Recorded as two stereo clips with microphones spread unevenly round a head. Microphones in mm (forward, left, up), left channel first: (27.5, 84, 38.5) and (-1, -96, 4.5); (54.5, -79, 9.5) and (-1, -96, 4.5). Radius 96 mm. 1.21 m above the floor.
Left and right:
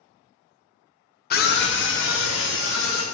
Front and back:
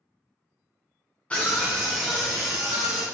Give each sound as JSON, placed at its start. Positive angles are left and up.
{"t": 1.3, "sound": "a scream", "azimuth_deg": 85, "distance_m": 0.6}